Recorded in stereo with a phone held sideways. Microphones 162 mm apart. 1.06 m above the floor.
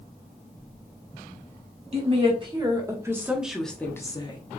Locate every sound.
1.9 s a woman speaking: 40° right (ahead or behind), 1.5 m; by 4.4 s 30° left (ahead or behind), 0.9 m